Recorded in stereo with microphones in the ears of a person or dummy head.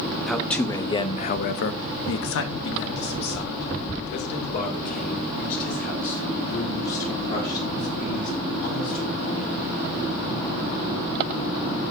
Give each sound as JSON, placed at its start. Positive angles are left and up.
{"t": 0.3, "sound": "a man speaking", "side_deg": 5, "distance_m": 1.1}